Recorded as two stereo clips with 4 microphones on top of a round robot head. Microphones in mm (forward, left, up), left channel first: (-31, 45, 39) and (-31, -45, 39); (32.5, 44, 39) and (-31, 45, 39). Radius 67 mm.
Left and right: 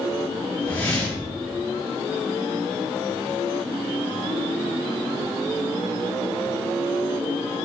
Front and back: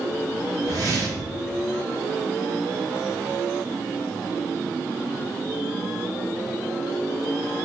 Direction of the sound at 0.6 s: 160° left.